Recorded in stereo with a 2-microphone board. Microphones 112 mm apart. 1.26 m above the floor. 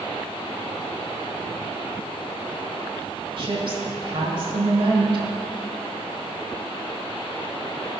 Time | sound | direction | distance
3.4 | a woman speaking | 50° right (ahead or behind) | 1.5 m